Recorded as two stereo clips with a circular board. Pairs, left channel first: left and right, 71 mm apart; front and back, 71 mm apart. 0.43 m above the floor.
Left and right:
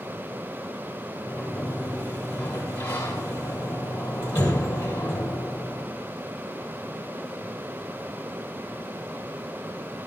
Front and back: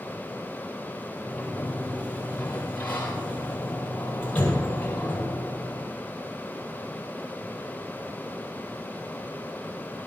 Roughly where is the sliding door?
Left.